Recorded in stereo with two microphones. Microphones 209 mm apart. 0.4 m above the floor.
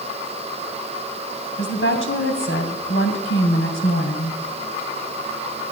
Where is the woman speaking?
70° left (ahead or behind), 2.5 m.